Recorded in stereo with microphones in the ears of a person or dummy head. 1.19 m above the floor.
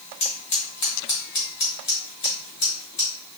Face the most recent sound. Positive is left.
turn(degrees=25)  # may be behind; listen again after turning